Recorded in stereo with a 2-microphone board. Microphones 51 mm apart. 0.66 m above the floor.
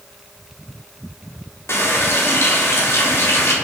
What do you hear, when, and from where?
1.7 s a running tap: 60° left (ahead or behind), 0.8 m